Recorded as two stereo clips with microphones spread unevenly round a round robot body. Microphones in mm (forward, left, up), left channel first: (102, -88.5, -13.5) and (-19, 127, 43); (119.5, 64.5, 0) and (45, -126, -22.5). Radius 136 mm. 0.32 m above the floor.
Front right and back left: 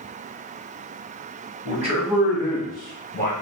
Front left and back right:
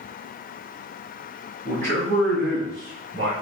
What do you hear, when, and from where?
1.6 s a man speaking: 175° right, 2 m; by 3.3 s 140° right, 2.5 m